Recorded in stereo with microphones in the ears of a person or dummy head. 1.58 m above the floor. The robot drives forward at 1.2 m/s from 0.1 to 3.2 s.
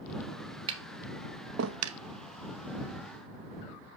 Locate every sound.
0.7 s tapping: 30° right (ahead or behind), 1.5 m; by 2.0 s 75° right (ahead or behind), 0.8 m